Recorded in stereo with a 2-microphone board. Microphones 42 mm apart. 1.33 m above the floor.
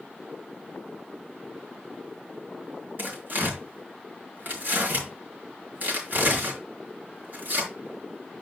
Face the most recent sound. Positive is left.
turn(degrees=-50)  # may be behind; listen again after turning